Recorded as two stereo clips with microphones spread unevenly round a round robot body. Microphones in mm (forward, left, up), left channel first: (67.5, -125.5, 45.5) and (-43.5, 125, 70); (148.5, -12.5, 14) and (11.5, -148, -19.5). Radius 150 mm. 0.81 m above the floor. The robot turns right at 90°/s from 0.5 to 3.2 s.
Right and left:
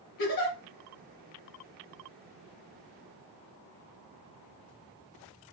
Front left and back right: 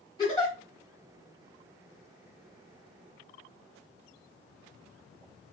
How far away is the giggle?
About 1.5 m.